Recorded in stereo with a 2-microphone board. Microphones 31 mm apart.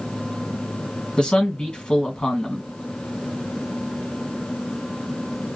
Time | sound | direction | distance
1.2 | a man speaking | 30° left (ahead or behind) | 1.6 m